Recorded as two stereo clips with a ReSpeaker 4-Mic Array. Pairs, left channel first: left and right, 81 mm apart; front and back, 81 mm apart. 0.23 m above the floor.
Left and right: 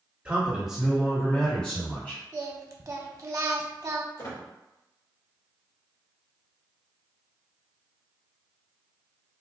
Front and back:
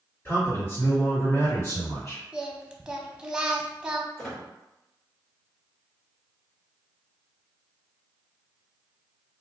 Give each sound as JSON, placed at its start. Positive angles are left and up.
{"t": 0.2, "sound": "a man speaking", "azimuth_deg": -25, "distance_m": 1.8}
{"t": 2.3, "sound": "singing", "azimuth_deg": -105, "distance_m": 0.5}
{"t": 4.2, "sound": "a squeak", "azimuth_deg": 80, "distance_m": 1.7}